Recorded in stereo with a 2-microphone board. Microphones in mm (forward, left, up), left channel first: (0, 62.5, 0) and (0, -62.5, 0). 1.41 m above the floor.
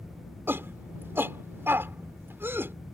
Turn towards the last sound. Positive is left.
turn(degrees=-20)  # may be behind; listen again after turning